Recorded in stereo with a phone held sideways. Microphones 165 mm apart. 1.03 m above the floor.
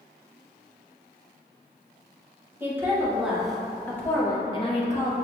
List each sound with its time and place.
2.6 s a woman speaking: 15° right (ahead or behind), 1.4 m; by 5.1 s 50° left (ahead or behind), 0.8 m